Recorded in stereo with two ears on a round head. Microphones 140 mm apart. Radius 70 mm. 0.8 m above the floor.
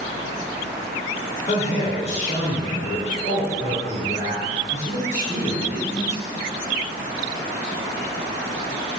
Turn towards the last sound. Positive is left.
turn(degrees=50)  # may be behind; listen again after turning